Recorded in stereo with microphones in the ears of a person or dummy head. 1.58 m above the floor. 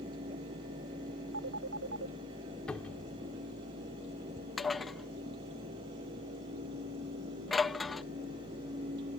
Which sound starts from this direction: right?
A phone ringing, at 1.3 s.